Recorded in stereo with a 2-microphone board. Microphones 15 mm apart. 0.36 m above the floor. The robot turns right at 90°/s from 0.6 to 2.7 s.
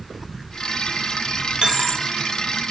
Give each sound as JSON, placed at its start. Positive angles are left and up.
{"t": 1.6, "sound": "a dropped coin", "azimuth_deg": -75, "distance_m": 0.6}